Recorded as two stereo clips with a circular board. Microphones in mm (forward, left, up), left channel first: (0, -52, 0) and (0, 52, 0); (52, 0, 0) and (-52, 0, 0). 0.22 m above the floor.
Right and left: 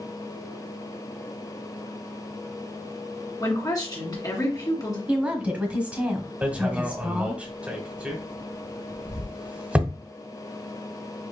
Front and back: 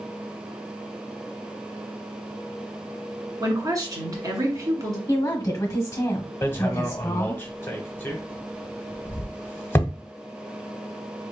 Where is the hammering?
30° left, 0.9 m.